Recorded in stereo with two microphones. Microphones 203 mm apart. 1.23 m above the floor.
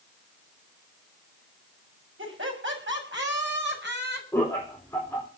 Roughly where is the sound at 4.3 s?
Centre.